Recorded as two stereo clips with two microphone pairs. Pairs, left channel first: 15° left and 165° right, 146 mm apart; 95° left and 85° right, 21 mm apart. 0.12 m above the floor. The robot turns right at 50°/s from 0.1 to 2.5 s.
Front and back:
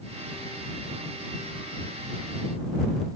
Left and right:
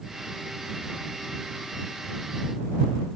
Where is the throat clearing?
No throat clearing in this recording.